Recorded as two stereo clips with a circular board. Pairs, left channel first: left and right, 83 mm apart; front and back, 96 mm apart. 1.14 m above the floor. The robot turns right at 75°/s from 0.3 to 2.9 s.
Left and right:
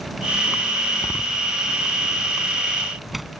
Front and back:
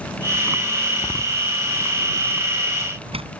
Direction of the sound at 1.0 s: 40° left.